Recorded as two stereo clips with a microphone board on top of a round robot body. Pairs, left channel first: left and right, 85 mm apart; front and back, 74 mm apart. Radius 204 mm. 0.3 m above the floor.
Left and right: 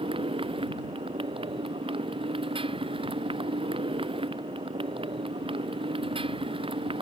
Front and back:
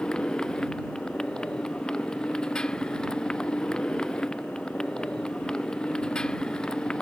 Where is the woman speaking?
No woman speaking in this recording.